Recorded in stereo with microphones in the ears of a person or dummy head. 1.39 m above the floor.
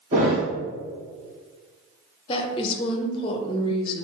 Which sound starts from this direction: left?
A woman speaking, at 2.3 s.